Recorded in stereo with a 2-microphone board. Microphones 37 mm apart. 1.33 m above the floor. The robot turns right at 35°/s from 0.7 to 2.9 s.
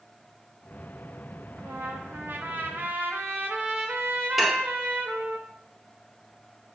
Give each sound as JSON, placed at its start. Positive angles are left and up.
{"t": 1.6, "sound": "a trumpet", "azimuth_deg": -115, "distance_m": 1.0}
{"t": 4.4, "sound": "dishes clattering", "side_deg": -5, "distance_m": 0.6}